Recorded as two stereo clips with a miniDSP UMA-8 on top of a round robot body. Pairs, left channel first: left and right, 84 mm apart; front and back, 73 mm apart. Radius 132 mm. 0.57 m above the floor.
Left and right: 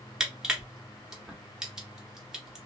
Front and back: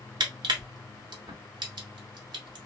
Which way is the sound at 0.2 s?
170° right.